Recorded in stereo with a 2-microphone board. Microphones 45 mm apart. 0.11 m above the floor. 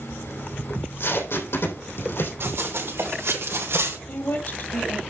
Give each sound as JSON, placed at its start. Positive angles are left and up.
{"t": 0.7, "sound": "tape being pulled", "side_deg": 70, "distance_m": 3.5}
{"t": 2.4, "sound": "running footsteps", "side_deg": -70, "distance_m": 4.5}
{"t": 4.1, "sound": "a woman speaking", "side_deg": 55, "distance_m": 2.5}